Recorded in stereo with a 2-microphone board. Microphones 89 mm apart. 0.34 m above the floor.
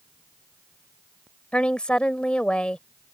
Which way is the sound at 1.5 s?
10° left (ahead or behind).